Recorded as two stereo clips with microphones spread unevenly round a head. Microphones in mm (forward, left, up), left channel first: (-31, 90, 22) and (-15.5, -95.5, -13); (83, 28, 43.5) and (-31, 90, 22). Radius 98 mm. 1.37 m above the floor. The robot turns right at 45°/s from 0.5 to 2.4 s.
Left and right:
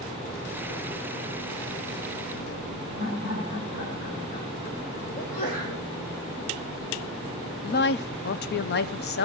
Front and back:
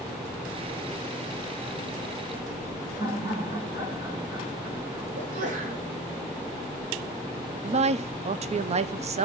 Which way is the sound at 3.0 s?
95° left.